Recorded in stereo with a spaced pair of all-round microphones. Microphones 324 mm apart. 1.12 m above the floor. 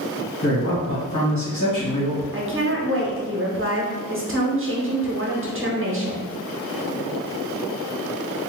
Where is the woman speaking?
40° right (ahead or behind), 0.8 m.